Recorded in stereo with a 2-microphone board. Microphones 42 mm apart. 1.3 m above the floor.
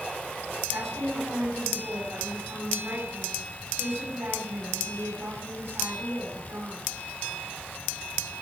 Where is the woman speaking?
80° right, 7 m.